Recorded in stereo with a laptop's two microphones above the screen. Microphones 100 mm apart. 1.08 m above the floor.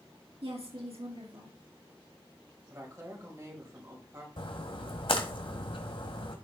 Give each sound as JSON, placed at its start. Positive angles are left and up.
{"t": 0.4, "sound": "a woman speaking", "side_deg": -80, "distance_m": 2.5}
{"t": 2.7, "sound": "a woman speaking", "side_deg": -30, "distance_m": 4.5}
{"t": 4.4, "sound": "a splash", "side_deg": 60, "distance_m": 1.9}